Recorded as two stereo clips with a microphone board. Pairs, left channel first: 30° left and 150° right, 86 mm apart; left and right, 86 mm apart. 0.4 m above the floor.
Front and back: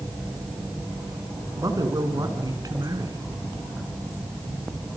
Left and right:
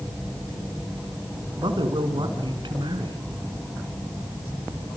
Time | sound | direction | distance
1.6 | a man speaking | 110° right | 4.5 m